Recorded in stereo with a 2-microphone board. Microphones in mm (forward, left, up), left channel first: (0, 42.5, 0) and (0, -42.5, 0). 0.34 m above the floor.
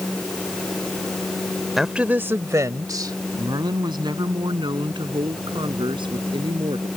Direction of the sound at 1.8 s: Centre (ahead or behind).